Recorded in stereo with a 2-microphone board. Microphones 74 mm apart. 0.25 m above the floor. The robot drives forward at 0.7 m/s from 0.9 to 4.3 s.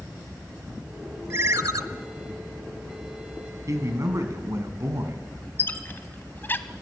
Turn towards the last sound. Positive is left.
turn(degrees=30)  # may be behind; listen again after turning